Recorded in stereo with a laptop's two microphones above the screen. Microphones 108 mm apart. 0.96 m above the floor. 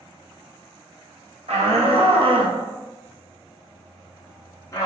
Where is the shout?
75° right (ahead or behind), 1.1 m; by 4.9 s 30° left (ahead or behind), 1.2 m.